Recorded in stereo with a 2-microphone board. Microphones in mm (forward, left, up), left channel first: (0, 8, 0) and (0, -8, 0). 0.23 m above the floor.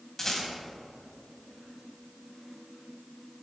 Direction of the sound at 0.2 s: 25° left (ahead or behind).